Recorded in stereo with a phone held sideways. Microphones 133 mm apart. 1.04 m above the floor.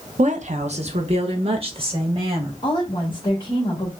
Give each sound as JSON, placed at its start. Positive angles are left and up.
{"t": 0.2, "sound": "a woman speaking", "side_deg": -55, "distance_m": 0.7}
{"t": 2.6, "sound": "a woman speaking", "side_deg": 35, "distance_m": 1.4}